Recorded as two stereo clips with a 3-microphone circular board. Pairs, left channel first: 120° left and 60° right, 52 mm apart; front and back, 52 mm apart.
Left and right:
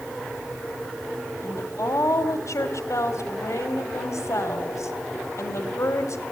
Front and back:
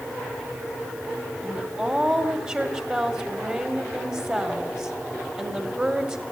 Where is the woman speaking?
120° left, 1.6 m.